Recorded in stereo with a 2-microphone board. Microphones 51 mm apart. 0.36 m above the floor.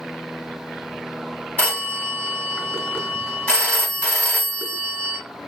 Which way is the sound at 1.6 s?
30° left (ahead or behind).